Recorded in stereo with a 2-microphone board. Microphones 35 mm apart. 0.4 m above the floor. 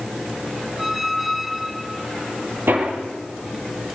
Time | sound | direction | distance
0.8 | a squeak | 5° right (ahead or behind) | 0.9 m
2.7 | hammering | 70° right (ahead or behind) | 10 m